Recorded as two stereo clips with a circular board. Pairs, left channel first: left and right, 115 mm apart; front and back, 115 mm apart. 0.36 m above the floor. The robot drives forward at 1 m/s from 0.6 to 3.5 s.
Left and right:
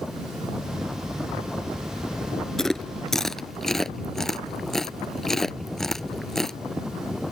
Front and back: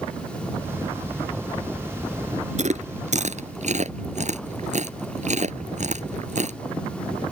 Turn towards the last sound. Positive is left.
turn(degrees=175)